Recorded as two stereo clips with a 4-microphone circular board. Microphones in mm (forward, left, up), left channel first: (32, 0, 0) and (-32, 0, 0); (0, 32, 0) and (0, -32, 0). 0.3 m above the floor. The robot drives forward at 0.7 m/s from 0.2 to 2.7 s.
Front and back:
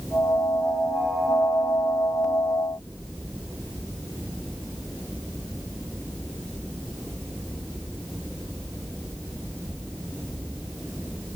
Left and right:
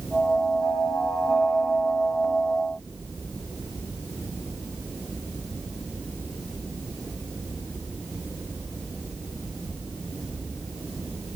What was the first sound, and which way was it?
Only background noise.